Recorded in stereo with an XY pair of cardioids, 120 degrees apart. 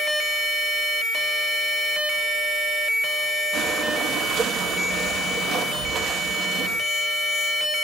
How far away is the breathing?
About 2.5 m.